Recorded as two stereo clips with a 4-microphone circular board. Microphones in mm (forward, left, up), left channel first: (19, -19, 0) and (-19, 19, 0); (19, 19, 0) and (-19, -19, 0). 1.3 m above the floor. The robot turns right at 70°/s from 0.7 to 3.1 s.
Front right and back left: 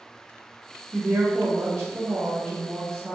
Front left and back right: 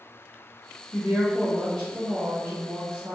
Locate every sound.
0.9 s a woman speaking: 80° left, 1.1 m; by 3.1 s 125° right, 1.1 m